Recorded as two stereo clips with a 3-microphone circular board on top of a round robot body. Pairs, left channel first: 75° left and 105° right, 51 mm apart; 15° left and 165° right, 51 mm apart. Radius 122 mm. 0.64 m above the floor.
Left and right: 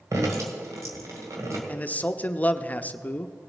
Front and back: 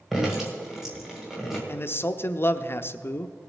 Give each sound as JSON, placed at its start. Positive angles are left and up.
{"t": 0.1, "sound": "dripping", "azimuth_deg": -80, "distance_m": 1.9}
{"t": 1.7, "sound": "a man speaking", "azimuth_deg": 25, "distance_m": 0.7}